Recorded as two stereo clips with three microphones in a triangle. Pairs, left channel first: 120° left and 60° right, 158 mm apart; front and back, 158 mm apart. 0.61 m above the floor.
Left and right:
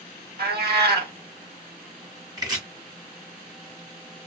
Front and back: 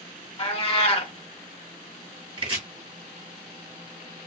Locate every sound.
0.4 s a cat meowing: 50° right, 0.7 m
2.4 s chopping: 125° right, 1.2 m